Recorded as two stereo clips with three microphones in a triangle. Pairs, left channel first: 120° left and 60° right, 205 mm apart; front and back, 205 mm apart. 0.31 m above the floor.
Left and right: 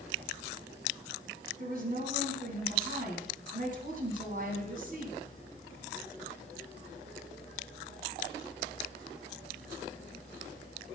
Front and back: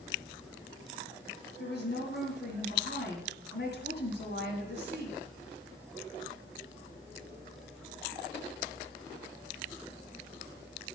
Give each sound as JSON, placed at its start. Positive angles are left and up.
{"t": 1.6, "sound": "a woman speaking", "azimuth_deg": -20, "distance_m": 2.5}